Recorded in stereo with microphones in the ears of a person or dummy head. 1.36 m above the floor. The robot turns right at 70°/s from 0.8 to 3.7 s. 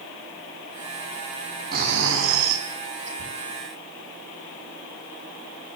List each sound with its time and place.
1.7 s snoring: 135° right, 5 m; by 3.1 s 40° right, 5 m
3.2 s a thud: 65° right (ahead or behind), 6.5 m; by 3.3 s 75° right (ahead or behind), 6.5 m